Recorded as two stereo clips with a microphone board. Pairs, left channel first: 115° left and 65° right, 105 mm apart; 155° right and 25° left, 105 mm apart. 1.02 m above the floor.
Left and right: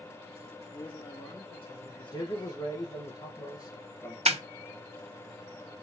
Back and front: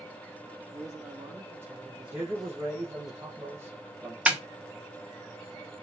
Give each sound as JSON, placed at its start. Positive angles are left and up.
{"t": 0.7, "sound": "a man speaking", "azimuth_deg": 75, "distance_m": 1.9}
{"t": 2.1, "sound": "a man speaking", "azimuth_deg": 80, "distance_m": 0.9}
{"t": 4.3, "sound": "a snare drum", "azimuth_deg": -55, "distance_m": 0.5}